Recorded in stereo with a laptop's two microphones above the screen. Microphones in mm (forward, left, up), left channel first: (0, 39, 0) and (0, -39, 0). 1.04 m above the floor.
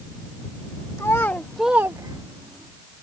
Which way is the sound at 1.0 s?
40° left (ahead or behind).